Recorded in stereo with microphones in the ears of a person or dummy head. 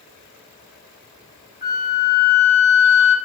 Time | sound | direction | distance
1.6 | a flute | 25° left (ahead or behind) | 1.1 m